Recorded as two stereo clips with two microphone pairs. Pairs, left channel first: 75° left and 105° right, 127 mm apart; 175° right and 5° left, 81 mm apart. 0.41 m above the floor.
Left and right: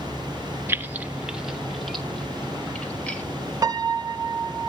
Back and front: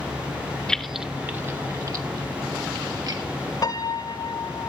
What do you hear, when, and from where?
0.7 s keys jangling: 110° right, 0.8 m; by 3.2 s 5° right, 2 m
3.6 s a piano: 160° right, 0.7 m